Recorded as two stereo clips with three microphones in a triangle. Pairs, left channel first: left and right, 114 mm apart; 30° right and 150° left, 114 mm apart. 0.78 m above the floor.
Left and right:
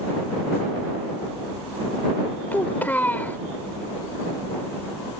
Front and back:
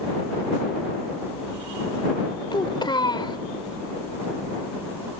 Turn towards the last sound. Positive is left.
turn(degrees=15)